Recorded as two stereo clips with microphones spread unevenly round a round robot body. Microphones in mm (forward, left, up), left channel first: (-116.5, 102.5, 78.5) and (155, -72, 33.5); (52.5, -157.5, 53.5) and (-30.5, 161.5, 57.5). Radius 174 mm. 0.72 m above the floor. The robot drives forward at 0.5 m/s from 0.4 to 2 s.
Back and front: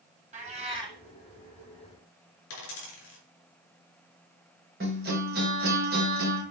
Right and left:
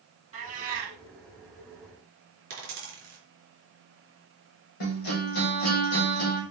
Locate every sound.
0.3 s a cat meowing: 40° left, 1.2 m; by 1.0 s 50° left, 1.0 m
2.5 s a dropped coin: 170° left, 3.5 m
4.8 s a guitar: 95° right, 3 m